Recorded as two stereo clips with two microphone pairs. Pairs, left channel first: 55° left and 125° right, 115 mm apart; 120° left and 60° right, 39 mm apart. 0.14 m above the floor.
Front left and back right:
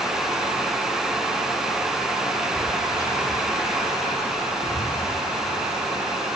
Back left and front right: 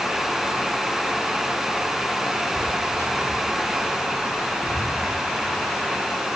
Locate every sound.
2.5 s footsteps: 120° left, 6 m; by 5.0 s 100° left, 6 m